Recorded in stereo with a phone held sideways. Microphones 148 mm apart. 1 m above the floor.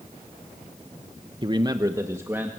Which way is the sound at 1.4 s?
35° right (ahead or behind).